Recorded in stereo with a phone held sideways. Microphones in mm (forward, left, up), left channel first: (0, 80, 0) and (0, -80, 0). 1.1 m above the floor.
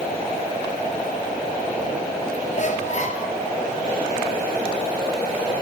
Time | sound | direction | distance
2.5 | a squeak | 50° left (ahead or behind) | 2 m